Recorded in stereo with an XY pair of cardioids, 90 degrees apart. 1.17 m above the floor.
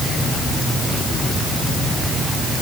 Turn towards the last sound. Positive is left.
No sound to turn to.